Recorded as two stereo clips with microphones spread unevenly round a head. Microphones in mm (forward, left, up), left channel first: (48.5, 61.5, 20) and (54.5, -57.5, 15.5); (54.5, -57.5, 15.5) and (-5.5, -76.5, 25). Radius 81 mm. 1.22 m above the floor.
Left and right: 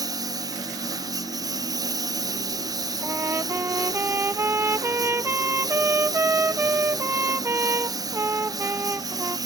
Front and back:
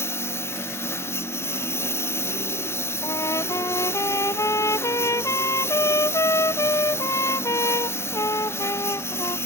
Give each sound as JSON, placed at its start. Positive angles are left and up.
{"t": 0.0, "sound": "a lawn mower", "azimuth_deg": -30}
{"t": 3.0, "sound": "a trumpet", "azimuth_deg": -20}